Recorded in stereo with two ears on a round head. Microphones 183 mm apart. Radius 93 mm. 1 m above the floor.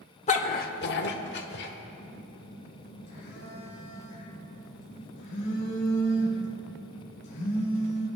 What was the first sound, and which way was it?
A dog barking, 35° left (ahead or behind).